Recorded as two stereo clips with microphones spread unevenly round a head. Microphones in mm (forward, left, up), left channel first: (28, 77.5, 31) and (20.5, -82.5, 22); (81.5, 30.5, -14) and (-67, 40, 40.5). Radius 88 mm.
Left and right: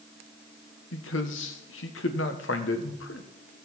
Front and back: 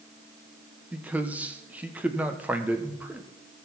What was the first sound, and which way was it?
A man speaking, 105° left.